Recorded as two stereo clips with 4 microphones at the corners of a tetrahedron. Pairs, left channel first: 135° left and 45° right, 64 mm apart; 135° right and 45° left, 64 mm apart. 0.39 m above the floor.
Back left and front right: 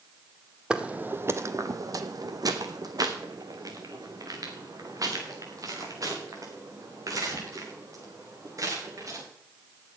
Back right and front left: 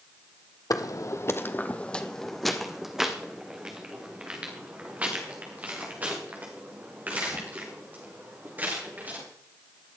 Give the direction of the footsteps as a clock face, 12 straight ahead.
4 o'clock.